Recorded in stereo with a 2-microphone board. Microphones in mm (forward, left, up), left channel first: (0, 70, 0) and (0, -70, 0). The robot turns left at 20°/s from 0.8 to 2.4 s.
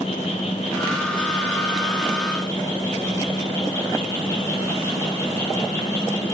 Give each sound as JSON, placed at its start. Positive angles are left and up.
{"t": 0.0, "sound": "an insect", "azimuth_deg": 55, "distance_m": 6.0}